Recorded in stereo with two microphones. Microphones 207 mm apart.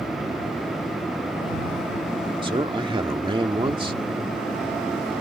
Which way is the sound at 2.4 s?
25° right (ahead or behind).